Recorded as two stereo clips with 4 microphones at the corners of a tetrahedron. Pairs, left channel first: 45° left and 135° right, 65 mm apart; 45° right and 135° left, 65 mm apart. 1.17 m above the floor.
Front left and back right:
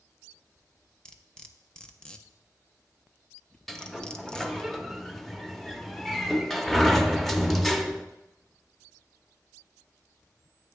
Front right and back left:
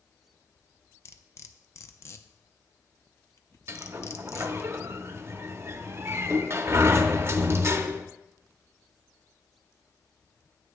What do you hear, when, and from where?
1.1 s cutlery clinking: 30° right, 0.5 m
3.7 s a sliding door: 130° left, 0.6 m